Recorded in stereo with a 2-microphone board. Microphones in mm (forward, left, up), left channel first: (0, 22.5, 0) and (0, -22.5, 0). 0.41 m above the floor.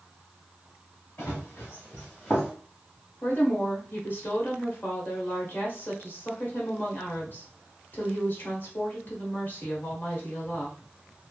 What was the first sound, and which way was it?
Running footsteps, 55° left (ahead or behind).